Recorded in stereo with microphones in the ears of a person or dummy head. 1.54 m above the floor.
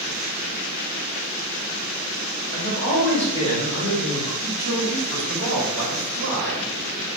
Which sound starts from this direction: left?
A man speaking, at 2.5 s.